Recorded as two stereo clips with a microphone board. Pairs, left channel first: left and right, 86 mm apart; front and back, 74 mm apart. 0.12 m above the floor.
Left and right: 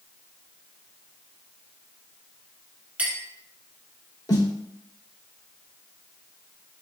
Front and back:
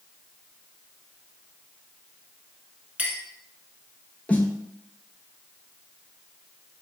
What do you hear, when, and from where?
3.0 s a clink: 135° right, 0.7 m
4.3 s a snare drum: 65° left, 0.5 m